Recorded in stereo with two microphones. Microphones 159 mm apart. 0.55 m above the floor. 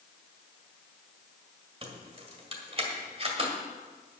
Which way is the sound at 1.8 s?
40° right (ahead or behind).